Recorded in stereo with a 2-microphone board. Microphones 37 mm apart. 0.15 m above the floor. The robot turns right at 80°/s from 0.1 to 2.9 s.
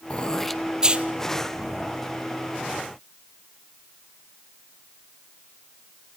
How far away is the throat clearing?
About 1.1 m.